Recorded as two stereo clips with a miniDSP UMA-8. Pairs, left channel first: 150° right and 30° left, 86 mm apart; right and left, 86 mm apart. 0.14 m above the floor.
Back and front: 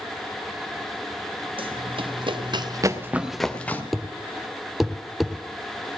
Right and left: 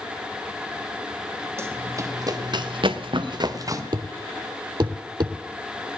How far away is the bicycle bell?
I don't hear a bicycle bell.